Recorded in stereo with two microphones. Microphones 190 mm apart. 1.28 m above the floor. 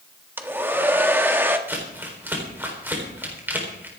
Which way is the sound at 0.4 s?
10° right (ahead or behind).